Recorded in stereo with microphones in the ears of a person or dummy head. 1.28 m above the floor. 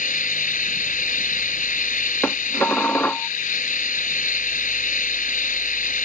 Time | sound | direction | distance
0.0 | an engine running | 40° left (ahead or behind) | ?
2.2 | dishes clattering | 10° left (ahead or behind) | ?